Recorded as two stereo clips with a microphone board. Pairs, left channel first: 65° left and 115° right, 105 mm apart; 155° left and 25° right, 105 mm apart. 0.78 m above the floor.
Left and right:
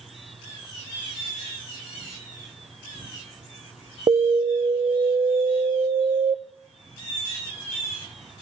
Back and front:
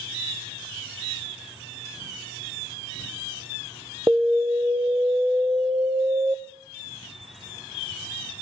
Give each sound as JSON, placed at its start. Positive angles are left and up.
{"t": 4.1, "sound": "an alarm", "azimuth_deg": -85, "distance_m": 0.8}